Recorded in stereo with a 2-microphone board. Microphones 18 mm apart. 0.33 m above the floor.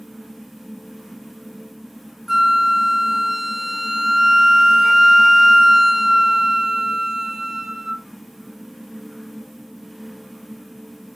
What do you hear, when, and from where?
2.3 s a flute: 20° right (ahead or behind), 0.6 m